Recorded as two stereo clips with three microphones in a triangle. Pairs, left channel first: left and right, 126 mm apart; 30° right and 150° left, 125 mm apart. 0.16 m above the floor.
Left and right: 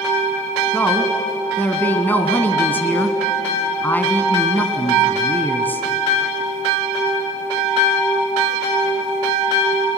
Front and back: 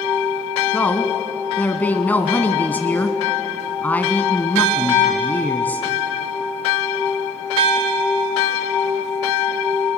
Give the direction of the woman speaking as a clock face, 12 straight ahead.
11 o'clock.